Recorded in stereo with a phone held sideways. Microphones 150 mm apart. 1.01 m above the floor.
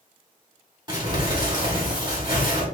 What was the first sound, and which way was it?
Crumpling, 30° right (ahead or behind).